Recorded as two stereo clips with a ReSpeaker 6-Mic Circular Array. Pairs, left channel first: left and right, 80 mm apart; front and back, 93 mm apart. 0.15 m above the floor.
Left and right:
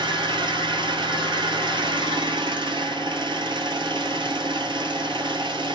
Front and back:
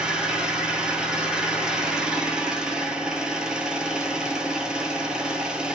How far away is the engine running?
About 0.8 m.